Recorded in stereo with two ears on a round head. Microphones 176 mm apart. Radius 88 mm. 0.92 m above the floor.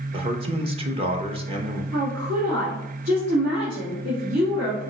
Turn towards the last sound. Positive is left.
turn(degrees=-75)  # may be behind; listen again after turning